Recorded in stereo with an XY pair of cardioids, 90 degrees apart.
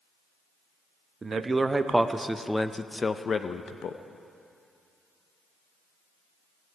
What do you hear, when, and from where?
1.2 s a man speaking: 35° right, 1.0 m; by 4.0 s 70° left, 0.8 m